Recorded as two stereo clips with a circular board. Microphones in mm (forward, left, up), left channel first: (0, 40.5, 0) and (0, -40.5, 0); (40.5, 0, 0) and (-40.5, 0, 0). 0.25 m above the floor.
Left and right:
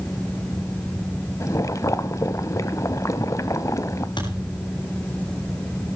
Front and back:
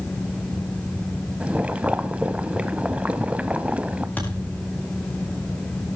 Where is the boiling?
115° left, 0.8 m.